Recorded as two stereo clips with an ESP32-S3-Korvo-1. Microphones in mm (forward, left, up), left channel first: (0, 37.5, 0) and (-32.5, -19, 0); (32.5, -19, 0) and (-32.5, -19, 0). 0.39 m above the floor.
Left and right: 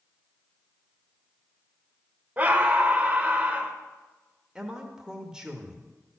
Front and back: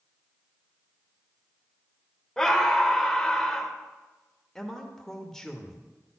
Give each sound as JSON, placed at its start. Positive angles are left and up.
{"t": 2.4, "sound": "a scream", "azimuth_deg": -80, "distance_m": 1.1}
{"t": 4.5, "sound": "a man speaking", "azimuth_deg": -65, "distance_m": 1.0}